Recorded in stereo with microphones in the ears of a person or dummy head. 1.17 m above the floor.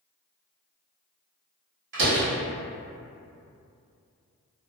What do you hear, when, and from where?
1.9 s a door slam: 65° right (ahead or behind), 1.3 m